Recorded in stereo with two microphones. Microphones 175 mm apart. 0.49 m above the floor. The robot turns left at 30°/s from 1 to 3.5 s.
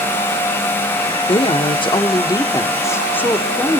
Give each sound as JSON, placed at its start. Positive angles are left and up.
{"t": 1.3, "sound": "a woman speaking", "azimuth_deg": 80, "distance_m": 1.2}